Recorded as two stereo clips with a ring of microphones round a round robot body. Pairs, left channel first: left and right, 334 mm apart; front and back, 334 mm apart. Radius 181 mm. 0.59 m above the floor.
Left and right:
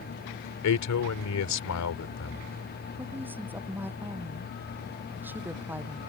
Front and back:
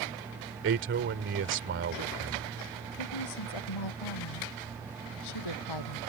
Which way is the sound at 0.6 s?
125° left.